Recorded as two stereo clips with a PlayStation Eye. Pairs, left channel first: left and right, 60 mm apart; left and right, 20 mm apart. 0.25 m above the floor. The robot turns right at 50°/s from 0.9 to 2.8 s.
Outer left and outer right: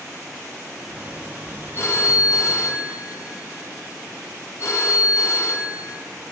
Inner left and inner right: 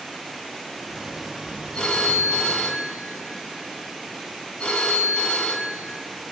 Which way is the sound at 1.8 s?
50° left.